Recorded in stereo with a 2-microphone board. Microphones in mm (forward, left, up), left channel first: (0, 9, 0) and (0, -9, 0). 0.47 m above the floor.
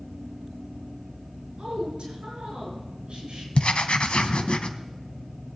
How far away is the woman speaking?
About 6 m.